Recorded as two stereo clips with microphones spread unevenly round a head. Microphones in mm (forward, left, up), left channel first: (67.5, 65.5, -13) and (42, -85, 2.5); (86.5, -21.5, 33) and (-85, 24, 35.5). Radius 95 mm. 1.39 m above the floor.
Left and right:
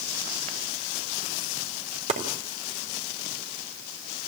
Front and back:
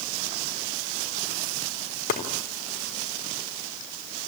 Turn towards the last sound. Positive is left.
turn(degrees=-60)